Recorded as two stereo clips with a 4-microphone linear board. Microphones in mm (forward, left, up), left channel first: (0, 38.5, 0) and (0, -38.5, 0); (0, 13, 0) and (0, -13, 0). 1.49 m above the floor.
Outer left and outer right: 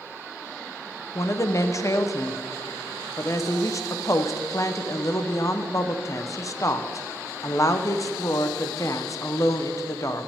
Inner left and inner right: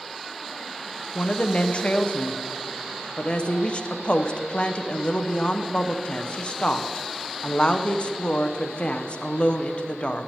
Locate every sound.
1.1 s a woman speaking: 45° left (ahead or behind), 0.8 m